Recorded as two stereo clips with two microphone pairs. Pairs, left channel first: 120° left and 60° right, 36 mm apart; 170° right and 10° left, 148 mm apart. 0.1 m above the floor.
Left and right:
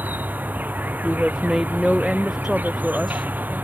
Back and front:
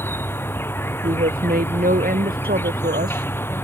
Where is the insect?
95° right.